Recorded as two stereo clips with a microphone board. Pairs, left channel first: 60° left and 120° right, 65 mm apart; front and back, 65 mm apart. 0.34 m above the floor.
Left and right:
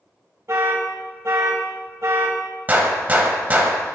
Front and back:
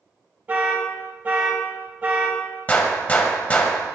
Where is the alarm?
125° right, 0.9 m.